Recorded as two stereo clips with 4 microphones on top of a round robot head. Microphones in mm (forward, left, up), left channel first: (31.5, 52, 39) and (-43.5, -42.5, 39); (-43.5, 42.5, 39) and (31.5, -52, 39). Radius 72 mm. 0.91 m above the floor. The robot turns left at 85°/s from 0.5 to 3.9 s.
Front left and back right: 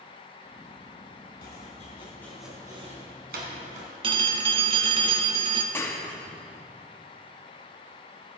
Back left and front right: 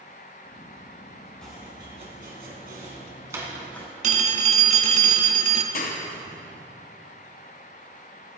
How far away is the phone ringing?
About 0.9 m.